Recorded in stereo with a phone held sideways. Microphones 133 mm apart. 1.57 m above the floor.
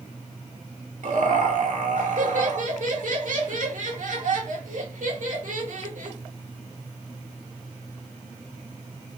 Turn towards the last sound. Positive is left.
turn(degrees=-75)  # may be behind; listen again after turning